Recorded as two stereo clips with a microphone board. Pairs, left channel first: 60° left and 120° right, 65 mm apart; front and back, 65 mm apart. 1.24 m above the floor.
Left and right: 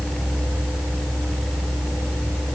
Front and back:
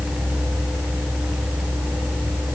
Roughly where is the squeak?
I don't hear a squeak.